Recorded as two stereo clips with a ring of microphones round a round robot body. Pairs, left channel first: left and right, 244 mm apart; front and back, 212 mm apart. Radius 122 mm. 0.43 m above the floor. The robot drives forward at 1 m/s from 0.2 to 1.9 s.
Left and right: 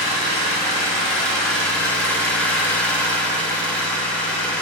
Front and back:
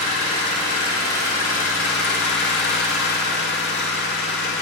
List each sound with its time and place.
0.0 s an engine running: straight ahead, 2.5 m; by 4.6 s 5° left, 1.0 m